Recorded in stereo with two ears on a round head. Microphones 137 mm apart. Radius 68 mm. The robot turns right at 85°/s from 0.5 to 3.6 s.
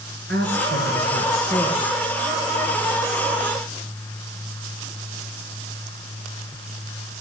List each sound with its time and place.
0.3 s a woman speaking: 75° right, 6.5 m; by 1.9 s 45° left, 6.5 m